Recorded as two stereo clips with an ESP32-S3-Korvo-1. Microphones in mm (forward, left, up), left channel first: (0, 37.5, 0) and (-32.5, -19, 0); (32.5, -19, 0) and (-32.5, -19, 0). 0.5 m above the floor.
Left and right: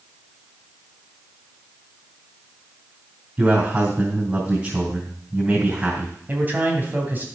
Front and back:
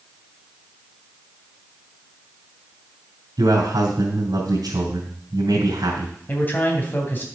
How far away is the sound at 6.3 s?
About 2.5 m.